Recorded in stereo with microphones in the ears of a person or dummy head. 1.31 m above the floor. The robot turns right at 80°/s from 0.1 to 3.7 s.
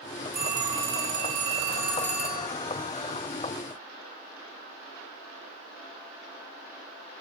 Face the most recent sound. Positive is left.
turn(degrees=140)